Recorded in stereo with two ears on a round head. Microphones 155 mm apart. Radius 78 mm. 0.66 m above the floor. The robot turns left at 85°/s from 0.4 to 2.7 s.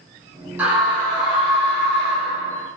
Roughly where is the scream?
Behind.